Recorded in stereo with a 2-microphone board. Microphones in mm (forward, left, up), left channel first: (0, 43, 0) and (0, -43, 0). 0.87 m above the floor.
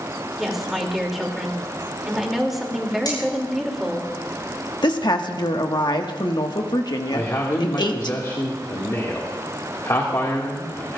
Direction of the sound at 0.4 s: Centre (ahead or behind).